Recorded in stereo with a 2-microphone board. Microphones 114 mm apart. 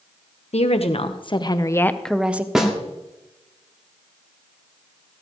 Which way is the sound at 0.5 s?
65° left (ahead or behind).